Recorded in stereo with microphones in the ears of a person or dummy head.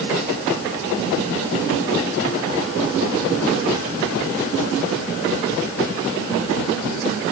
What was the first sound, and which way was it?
Only background noise.